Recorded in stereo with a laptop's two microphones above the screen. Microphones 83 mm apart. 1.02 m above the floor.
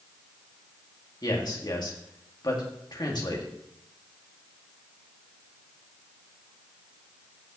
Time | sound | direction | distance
1.2 | a man speaking | 55° left (ahead or behind) | 1.8 m